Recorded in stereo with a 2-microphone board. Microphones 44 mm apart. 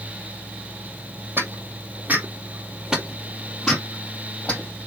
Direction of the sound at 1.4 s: 50° right (ahead or behind).